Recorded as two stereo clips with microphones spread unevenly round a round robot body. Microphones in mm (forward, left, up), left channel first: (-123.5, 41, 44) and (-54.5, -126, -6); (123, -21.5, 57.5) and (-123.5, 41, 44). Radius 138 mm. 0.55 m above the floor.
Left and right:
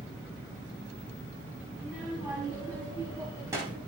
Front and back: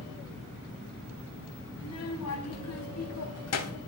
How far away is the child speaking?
About 4.5 m.